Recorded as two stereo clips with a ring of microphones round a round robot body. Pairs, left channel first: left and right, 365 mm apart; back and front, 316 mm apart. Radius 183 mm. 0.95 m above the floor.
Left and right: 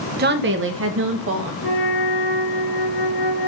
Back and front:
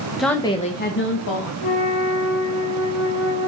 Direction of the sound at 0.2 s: 85° right.